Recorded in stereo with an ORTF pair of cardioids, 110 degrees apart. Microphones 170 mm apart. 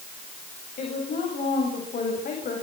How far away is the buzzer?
I don't hear a buzzer.